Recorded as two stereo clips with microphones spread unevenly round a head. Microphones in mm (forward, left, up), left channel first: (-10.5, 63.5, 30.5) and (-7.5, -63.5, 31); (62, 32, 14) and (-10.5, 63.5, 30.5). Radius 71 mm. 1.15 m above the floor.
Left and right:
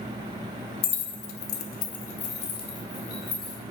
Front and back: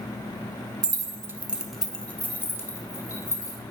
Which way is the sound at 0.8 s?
130° left.